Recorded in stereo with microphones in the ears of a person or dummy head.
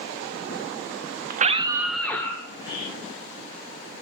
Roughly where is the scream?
Right.